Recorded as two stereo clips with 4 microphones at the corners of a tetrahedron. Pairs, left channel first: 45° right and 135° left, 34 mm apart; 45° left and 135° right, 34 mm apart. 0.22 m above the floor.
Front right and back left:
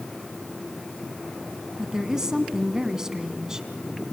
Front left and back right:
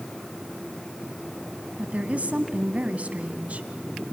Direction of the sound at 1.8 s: 155° right.